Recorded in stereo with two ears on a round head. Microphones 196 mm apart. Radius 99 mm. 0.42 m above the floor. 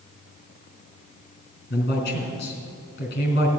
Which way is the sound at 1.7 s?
45° left (ahead or behind).